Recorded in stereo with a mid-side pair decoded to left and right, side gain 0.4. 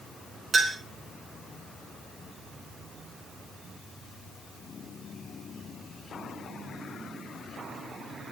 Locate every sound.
0.5 s a clink: 50° right, 3 m